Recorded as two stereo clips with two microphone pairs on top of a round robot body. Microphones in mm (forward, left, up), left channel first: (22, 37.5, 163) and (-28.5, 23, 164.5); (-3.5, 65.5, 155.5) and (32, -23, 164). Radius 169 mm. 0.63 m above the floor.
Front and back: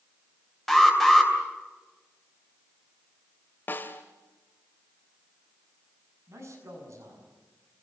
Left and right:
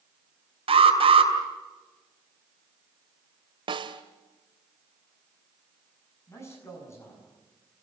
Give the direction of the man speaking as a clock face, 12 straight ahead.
6 o'clock.